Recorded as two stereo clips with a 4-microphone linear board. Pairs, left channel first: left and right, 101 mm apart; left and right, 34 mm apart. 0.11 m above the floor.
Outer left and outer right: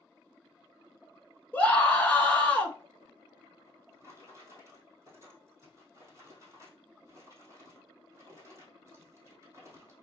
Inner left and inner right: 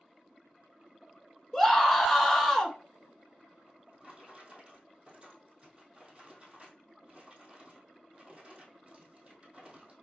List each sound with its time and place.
1.5 s a scream: 15° left (ahead or behind), 1.0 m
3.6 s a drawer: 30° right (ahead or behind), 2 m